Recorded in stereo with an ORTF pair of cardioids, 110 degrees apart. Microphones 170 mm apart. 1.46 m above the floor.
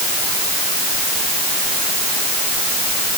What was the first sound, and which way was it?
Only background noise.